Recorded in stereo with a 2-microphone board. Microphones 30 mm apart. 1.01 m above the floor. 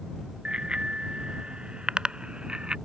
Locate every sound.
0.5 s a bicycle bell: 30° right (ahead or behind)